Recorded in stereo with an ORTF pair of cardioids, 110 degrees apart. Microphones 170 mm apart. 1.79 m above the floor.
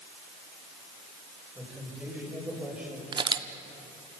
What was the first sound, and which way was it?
A man speaking, 5° right.